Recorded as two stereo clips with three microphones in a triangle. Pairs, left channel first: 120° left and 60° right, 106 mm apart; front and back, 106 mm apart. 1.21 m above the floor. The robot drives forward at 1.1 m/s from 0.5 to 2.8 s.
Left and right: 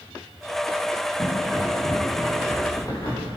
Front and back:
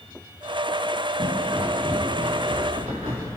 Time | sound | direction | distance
1.2 | footsteps | 160° left | 7.5 m